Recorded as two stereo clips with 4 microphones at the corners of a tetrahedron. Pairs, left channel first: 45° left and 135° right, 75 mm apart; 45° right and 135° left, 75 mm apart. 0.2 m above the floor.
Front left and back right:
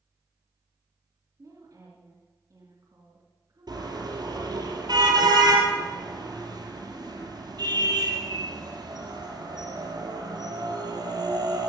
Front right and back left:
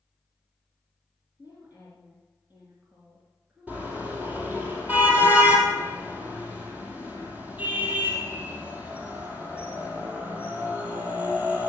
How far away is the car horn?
About 3.5 m.